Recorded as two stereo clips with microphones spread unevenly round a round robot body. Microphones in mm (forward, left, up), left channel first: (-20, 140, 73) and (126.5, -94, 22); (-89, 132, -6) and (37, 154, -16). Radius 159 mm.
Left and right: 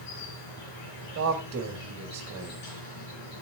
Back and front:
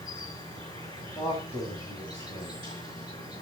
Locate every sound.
0.0 s an insect: 125° left, 4.5 m
1.1 s a man speaking: 75° right, 1.4 m